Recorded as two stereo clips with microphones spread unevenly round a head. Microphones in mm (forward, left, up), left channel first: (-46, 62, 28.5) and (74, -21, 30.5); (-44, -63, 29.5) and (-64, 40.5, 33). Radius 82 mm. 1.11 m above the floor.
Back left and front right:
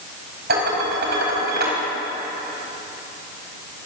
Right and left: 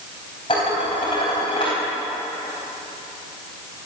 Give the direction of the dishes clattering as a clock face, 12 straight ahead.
1 o'clock.